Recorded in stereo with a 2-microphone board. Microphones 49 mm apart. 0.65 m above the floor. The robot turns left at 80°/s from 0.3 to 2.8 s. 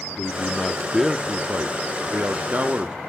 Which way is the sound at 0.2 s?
45° left.